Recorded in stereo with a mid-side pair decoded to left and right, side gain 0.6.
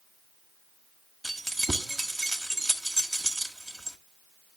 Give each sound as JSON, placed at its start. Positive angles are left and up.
{"t": 1.2, "sound": "keys jangling", "azimuth_deg": -10, "distance_m": 1.6}